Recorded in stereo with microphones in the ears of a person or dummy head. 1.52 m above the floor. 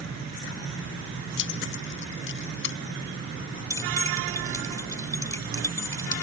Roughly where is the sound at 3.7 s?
Centre.